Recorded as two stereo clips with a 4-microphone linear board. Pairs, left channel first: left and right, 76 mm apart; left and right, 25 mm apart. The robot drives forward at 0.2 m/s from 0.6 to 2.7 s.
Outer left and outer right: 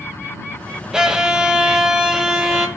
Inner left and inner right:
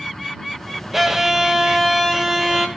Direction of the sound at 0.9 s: 10° right (ahead or behind).